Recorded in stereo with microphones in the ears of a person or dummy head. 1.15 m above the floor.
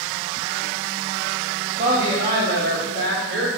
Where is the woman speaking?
25° right (ahead or behind), 0.8 m; by 3.5 s 60° right (ahead or behind), 1.6 m.